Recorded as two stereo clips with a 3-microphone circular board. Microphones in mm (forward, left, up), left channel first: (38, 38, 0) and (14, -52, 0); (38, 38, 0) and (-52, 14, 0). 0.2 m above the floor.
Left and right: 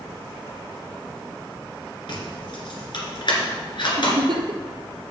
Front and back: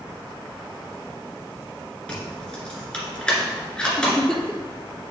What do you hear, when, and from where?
2.1 s keys jangling: 95° left, 2 m
4.0 s a giggle: 70° right, 1.0 m